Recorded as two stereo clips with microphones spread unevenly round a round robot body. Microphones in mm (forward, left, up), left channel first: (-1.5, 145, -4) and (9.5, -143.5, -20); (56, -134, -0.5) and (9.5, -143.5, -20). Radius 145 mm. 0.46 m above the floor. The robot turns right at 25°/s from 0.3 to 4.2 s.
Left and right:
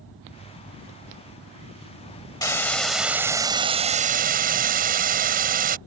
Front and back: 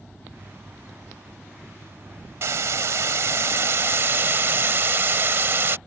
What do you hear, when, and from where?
2.4 s a hiss: 170° left; by 5.8 s 145° right